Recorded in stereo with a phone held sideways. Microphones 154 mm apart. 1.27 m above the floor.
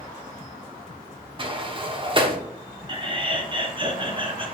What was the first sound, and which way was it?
A sliding door, 35° right (ahead or behind).